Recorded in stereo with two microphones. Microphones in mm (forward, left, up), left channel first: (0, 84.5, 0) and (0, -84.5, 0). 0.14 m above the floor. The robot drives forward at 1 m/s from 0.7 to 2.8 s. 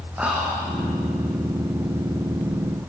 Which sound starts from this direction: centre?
Whispering, at 0.2 s.